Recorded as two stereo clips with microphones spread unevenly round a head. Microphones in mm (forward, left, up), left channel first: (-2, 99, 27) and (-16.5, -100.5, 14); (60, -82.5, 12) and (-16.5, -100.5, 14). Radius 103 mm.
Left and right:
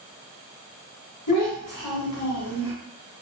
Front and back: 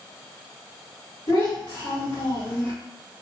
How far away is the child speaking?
About 1.6 m.